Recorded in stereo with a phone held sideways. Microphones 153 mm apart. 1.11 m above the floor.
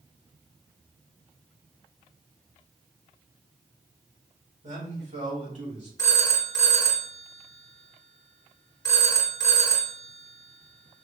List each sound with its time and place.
4.6 s a man speaking: 50° right (ahead or behind), 2.0 m
6.0 s a phone ringing: 20° left (ahead or behind), 1.0 m